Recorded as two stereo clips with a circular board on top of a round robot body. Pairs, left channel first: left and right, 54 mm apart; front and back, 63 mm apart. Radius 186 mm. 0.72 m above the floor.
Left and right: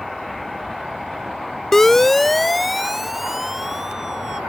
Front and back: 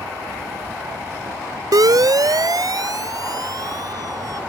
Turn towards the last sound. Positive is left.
turn(degrees=-170)